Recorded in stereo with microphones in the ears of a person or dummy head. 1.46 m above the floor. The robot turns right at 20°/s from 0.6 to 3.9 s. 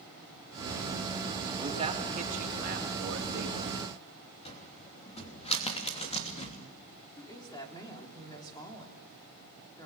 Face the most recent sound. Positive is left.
turn(degrees=20)  # may be behind; listen again after turning